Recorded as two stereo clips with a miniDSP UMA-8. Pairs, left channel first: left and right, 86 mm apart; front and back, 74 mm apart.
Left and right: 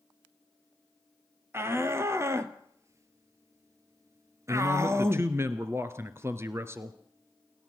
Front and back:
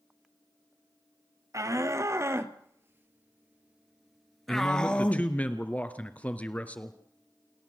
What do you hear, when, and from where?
1.5 s a shout: 145° right, 2 m; by 5.3 s 50° right, 1.3 m
4.5 s a man speaking: 55° right, 1.6 m